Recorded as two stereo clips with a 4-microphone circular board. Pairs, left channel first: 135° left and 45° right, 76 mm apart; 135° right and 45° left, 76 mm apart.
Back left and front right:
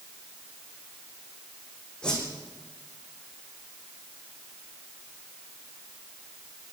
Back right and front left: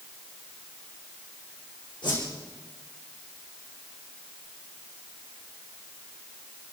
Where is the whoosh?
145° right, 7 m.